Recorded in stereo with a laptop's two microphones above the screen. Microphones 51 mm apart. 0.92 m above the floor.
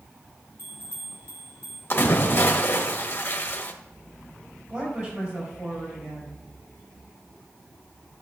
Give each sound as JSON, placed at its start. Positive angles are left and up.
{"t": 0.6, "sound": "a bell", "side_deg": -55, "distance_m": 3.5}
{"t": 1.9, "sound": "a splash", "side_deg": 40, "distance_m": 1.3}
{"t": 4.7, "sound": "a woman speaking", "side_deg": -40, "distance_m": 4.0}